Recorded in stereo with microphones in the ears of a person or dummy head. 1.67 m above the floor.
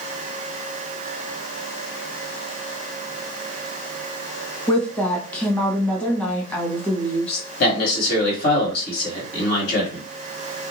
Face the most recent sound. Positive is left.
turn(degrees=55)  # may be behind; listen again after turning